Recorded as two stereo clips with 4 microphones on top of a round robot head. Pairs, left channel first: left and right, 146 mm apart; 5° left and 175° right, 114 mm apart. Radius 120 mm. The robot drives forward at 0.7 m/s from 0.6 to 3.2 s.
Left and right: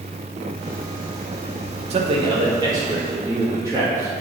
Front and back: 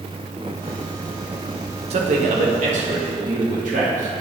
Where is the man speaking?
140° right, 0.6 m; by 4.2 s 165° right, 1.4 m.